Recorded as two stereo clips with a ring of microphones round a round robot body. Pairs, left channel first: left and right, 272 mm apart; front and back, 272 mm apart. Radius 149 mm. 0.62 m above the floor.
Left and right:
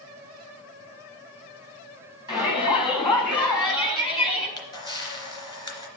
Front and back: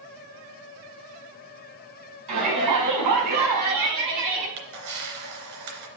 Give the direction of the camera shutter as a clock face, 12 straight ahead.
6 o'clock.